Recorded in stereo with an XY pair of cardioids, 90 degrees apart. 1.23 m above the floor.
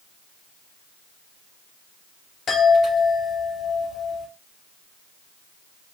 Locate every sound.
2.5 s a chime: 65° left, 2.5 m